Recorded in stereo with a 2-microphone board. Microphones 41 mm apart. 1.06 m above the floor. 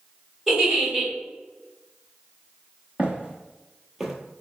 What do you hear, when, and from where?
0.5 s a giggle: 10° right (ahead or behind), 1.8 m
3.0 s footsteps: 35° right (ahead or behind), 1.2 m; by 4.1 s 5° right (ahead or behind), 1.0 m